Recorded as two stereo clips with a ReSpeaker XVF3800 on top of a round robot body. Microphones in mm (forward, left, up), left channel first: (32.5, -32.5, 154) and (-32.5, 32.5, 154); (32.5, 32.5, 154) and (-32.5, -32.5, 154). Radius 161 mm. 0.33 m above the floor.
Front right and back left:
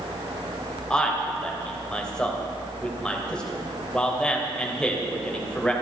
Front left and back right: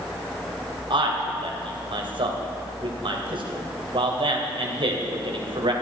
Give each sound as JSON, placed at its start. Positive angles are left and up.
{"t": 0.9, "sound": "a man speaking", "azimuth_deg": -125, "distance_m": 2.5}